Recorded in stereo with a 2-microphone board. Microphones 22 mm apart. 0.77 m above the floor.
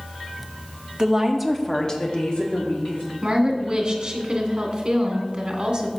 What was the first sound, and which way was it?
A woman speaking, 25° right (ahead or behind).